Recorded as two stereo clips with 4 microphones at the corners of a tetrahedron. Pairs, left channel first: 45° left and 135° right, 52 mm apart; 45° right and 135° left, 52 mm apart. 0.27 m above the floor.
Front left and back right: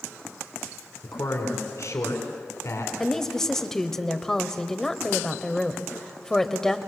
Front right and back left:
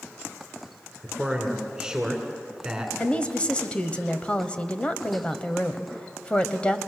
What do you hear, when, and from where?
1.0 s a man speaking: 60° left, 3 m
3.0 s a woman speaking: 20° right, 1.2 m